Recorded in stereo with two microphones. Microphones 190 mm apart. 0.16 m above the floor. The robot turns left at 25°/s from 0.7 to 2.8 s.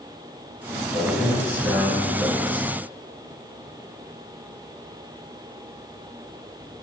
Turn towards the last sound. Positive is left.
turn(degrees=140)